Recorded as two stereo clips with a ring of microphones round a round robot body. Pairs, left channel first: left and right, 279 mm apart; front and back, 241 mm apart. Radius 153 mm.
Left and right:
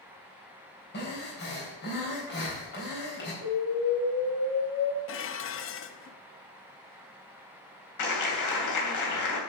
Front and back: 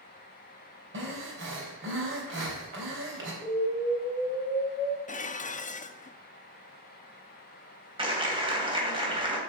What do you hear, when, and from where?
0.9 s breathing: 145° left, 3.5 m
3.4 s an explosion: 65° left, 1.8 m
5.1 s dishes clattering: 55° left, 0.7 m
8.0 s a clap: 110° left, 3 m